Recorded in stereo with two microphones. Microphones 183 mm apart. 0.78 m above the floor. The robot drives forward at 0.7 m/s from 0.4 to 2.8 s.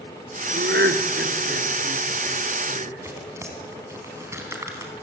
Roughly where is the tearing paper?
Centre.